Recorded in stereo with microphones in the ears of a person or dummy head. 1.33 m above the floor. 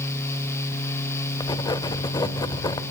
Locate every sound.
1.4 s writing: 25° left (ahead or behind), 1.4 m